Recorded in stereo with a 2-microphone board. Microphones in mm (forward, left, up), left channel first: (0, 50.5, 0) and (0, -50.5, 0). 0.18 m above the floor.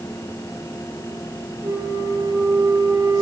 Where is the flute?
35° right (ahead or behind), 3 m.